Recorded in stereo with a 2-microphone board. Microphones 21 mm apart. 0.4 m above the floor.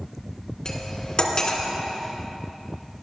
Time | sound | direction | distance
0.7 | cutlery clinking | 35° left (ahead or behind) | 2.5 m